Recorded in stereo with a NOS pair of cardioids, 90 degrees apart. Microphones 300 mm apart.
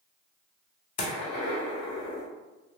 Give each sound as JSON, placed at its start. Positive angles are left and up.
{"t": 1.0, "sound": "a gunshot", "azimuth_deg": 55, "distance_m": 0.8}